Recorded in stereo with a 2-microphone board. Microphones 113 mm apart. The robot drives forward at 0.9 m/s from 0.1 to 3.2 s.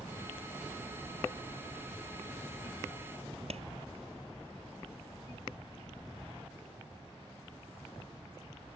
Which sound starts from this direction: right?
A clap, at 3.5 s.